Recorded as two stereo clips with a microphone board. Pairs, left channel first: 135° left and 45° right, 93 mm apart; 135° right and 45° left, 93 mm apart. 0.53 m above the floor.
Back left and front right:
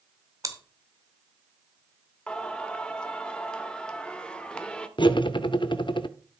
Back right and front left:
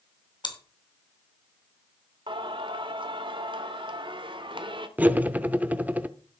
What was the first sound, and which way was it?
Chewing, 100° right.